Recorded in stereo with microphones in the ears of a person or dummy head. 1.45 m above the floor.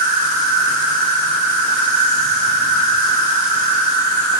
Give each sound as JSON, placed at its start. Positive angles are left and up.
{"t": 0.0, "sound": "an insect", "side_deg": -60, "distance_m": 1.5}